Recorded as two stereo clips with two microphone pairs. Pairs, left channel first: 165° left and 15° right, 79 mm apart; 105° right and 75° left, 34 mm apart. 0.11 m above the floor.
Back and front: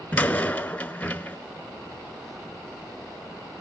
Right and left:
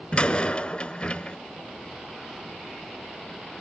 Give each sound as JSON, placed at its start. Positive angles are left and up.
{"t": 0.1, "sound": "a door slam", "azimuth_deg": -140, "distance_m": 0.9}